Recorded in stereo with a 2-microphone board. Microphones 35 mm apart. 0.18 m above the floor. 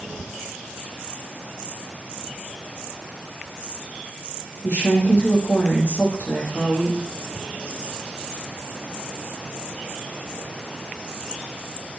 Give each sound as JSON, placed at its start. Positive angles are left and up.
{"t": 4.6, "sound": "a woman speaking", "side_deg": 70, "distance_m": 7.0}